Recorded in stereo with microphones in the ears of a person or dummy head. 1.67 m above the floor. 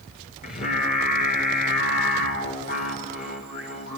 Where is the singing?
40° left (ahead or behind), 5 m.